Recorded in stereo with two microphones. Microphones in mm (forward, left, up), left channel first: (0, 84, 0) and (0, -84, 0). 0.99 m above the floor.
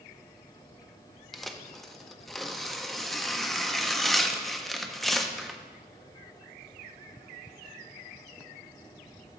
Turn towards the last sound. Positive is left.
turn(degrees=0)  # may be behind; listen again after turning